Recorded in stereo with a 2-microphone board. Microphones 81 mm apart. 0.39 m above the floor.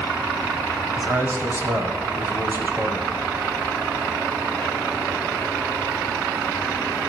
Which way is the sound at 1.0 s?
30° right (ahead or behind).